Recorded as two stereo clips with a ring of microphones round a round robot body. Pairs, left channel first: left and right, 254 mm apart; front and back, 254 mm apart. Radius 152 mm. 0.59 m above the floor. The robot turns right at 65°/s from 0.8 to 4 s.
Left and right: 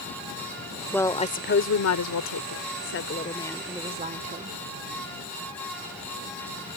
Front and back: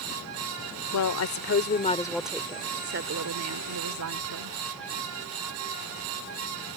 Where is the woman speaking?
5° left; by 4.6 s 155° right.